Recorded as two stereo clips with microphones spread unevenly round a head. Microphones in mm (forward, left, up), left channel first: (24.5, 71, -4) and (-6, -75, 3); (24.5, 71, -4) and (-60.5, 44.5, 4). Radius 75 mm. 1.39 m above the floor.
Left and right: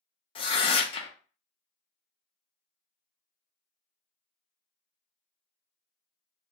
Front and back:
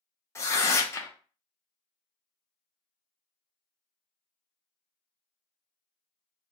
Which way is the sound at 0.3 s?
55° left.